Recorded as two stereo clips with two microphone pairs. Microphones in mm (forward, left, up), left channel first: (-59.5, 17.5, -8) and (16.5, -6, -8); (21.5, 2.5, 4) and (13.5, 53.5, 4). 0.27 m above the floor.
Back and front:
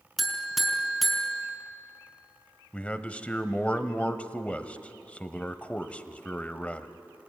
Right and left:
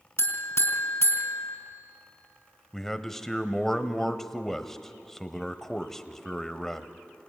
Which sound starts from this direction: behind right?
A man speaking, at 2.7 s.